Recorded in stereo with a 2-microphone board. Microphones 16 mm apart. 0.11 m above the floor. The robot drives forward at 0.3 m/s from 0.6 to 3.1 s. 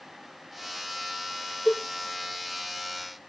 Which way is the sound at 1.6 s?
10° right (ahead or behind).